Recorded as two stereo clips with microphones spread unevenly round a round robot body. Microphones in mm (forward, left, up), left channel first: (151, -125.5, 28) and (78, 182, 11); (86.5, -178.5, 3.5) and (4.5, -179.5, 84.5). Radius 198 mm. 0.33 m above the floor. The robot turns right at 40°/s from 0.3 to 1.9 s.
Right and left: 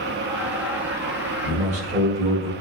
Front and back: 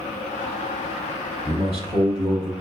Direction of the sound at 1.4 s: 90° left.